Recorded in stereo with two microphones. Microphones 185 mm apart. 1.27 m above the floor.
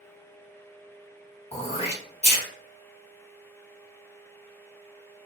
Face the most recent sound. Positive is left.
turn(degrees=35)  # may be behind; listen again after turning